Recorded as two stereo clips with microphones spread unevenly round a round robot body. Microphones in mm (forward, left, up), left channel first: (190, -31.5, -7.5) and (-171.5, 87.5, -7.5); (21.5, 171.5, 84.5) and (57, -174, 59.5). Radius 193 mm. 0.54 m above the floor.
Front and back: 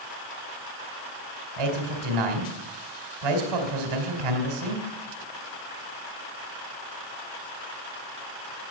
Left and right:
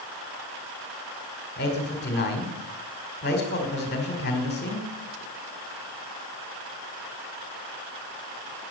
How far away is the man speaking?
About 2.5 m.